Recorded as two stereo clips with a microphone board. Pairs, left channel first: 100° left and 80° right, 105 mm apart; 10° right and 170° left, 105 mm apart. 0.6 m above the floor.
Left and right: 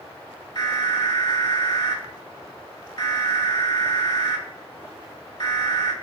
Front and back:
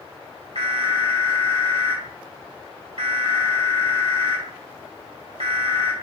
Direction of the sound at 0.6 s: 140° left.